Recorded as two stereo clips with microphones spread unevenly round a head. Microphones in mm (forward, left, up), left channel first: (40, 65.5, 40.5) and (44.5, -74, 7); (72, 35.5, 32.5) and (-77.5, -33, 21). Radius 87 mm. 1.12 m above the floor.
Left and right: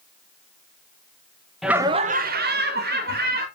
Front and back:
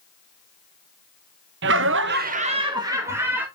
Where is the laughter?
175° right, 0.9 m; by 3.5 s 75° right, 2 m.